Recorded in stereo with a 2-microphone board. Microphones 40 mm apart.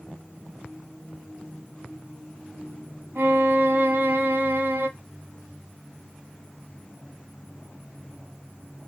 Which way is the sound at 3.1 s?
55° right (ahead or behind).